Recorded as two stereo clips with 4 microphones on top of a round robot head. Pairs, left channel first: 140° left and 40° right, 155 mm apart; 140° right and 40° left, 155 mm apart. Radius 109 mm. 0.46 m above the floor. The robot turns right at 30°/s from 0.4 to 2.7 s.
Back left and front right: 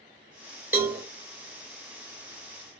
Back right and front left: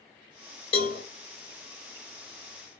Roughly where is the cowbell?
Right.